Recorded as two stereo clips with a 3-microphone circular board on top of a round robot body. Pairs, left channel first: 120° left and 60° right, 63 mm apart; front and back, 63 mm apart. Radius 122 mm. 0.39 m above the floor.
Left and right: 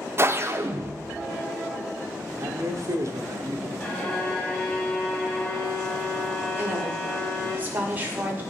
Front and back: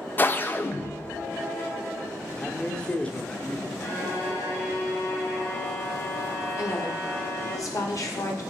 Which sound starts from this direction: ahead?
A woman speaking, at 6.6 s.